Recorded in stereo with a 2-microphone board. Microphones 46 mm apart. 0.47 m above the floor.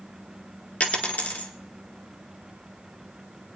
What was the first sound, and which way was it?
A dropped coin, 40° left (ahead or behind).